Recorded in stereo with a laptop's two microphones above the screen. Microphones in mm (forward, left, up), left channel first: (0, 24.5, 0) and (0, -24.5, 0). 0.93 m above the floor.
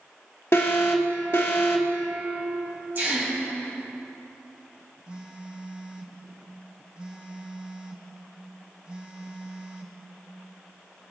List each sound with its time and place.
0.5 s an alarm: 55° left (ahead or behind), 1.1 m
3.0 s a gasp: 40° right (ahead or behind), 3.5 m
5.1 s a phone buzzing: 20° right (ahead or behind), 1.0 m